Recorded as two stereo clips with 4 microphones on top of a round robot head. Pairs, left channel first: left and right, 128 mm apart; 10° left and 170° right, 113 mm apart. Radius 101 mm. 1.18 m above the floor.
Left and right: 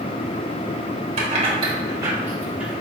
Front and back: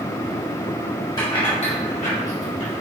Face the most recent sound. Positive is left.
turn(degrees=-5)